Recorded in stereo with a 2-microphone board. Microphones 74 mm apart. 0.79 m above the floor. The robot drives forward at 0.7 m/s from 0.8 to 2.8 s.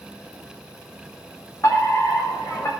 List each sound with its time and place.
1.6 s a fire alarm: 45° left (ahead or behind), 4 m; by 2.7 s 50° left (ahead or behind), 3.5 m